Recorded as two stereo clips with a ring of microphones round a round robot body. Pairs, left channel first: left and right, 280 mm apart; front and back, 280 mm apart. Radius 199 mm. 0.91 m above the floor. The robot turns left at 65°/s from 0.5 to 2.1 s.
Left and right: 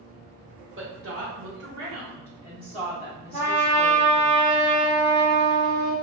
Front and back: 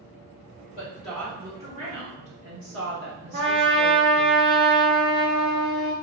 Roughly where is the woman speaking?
Ahead right.